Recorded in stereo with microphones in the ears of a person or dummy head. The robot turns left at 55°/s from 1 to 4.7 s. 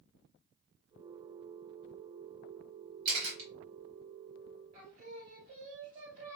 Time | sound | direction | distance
3.0 | a camera shutter | 45° right (ahead or behind) | 2 m
4.7 | singing | 50° right (ahead or behind) | 2.5 m